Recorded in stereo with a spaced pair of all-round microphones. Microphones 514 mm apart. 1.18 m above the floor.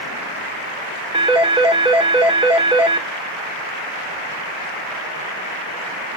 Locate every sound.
1.1 s a phone ringing: 10° right (ahead or behind), 1.6 m